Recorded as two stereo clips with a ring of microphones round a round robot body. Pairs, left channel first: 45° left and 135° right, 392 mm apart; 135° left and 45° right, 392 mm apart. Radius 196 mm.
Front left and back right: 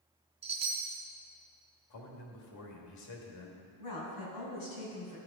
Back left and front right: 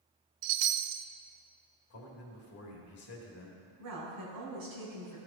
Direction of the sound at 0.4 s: 60° right.